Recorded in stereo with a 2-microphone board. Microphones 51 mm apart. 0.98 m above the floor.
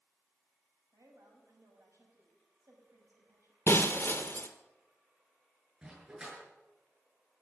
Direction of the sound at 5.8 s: 20° right (ahead or behind).